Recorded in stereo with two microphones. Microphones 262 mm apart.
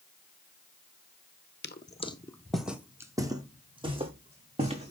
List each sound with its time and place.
1.6 s footsteps: 40° left (ahead or behind), 0.6 m; by 4.9 s 25° right (ahead or behind), 2.5 m